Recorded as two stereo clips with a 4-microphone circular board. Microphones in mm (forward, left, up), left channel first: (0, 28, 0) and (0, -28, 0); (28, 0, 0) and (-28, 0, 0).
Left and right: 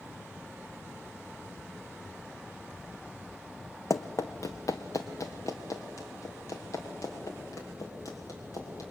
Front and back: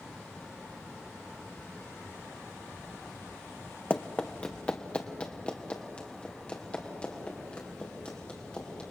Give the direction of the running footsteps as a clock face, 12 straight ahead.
10 o'clock.